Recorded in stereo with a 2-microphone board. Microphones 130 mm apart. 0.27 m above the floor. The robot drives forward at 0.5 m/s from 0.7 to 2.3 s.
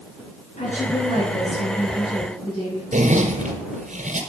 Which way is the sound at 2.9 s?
75° right (ahead or behind).